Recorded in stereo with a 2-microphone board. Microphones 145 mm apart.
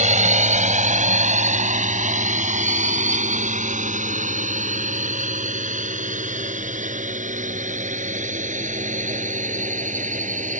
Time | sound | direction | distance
0.0 | a drone | 55° right (ahead or behind) | ?